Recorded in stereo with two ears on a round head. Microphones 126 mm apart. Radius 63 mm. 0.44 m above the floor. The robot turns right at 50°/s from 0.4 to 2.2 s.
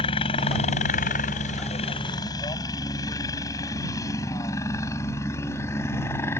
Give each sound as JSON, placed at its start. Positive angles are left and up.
{"t": 0.0, "sound": "a helicopter", "side_deg": 40}